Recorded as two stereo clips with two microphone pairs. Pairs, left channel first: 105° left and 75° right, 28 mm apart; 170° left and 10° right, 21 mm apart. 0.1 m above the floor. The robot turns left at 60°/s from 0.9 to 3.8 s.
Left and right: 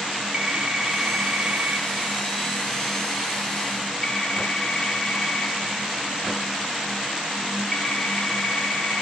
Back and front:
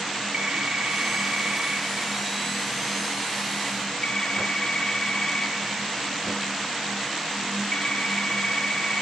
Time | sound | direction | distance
0.3 | a phone ringing | 15° right | 2.0 m